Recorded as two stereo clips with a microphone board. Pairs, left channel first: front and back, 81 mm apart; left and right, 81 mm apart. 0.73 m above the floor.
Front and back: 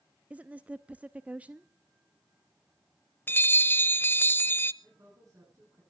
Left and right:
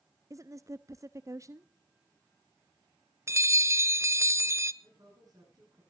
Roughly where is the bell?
Ahead right.